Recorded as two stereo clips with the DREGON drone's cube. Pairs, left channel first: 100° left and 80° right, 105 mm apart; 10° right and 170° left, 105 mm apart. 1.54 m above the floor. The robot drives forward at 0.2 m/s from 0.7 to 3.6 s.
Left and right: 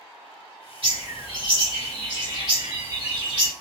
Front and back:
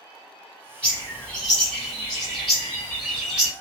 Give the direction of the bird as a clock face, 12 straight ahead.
3 o'clock.